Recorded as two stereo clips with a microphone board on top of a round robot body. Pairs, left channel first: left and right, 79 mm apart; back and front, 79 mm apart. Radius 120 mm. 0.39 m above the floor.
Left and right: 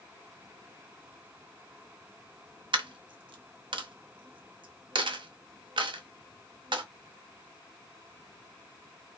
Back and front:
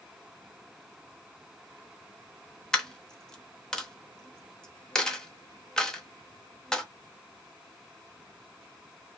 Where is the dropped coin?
100° right, 0.7 m.